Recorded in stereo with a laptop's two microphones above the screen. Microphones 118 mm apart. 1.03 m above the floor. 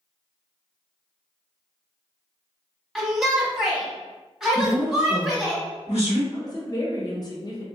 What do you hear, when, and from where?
3.0 s a shout: centre (ahead or behind), 1.1 m
4.5 s a woman speaking: 75° left (ahead or behind), 1.7 m
6.3 s a woman speaking: 35° left (ahead or behind), 0.6 m